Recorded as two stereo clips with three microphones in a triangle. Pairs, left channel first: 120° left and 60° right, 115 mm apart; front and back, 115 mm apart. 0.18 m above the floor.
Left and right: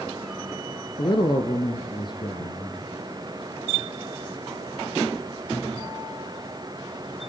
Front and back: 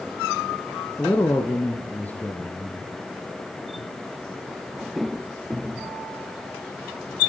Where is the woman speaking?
75° left, 2.5 m.